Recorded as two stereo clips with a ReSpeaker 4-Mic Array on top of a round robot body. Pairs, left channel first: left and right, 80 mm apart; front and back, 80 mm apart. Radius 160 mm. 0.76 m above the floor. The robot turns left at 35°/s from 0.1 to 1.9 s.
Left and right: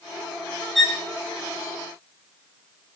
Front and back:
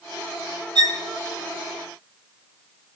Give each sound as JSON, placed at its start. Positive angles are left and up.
{"t": 0.8, "sound": "a violin", "azimuth_deg": 180, "distance_m": 3.0}